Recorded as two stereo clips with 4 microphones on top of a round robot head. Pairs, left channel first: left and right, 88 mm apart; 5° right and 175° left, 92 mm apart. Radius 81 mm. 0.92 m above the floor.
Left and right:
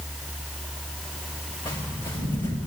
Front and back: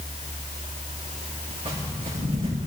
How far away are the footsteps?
About 6.5 m.